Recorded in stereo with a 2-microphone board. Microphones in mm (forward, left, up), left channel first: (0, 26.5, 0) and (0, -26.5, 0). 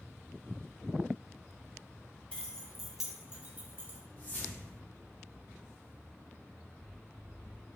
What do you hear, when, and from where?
2.3 s keys jangling: 20° left (ahead or behind), 0.7 m; by 4.0 s 45° right (ahead or behind), 0.8 m
4.2 s a whoosh: 40° left (ahead or behind), 0.9 m